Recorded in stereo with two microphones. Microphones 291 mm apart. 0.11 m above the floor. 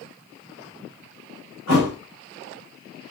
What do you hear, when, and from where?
1.7 s a thud: 60° left (ahead or behind), 4.5 m